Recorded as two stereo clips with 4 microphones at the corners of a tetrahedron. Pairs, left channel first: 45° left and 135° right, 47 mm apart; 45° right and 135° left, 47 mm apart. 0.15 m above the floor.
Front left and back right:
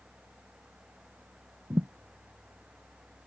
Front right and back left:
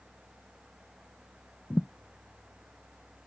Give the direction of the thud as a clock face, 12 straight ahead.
3 o'clock.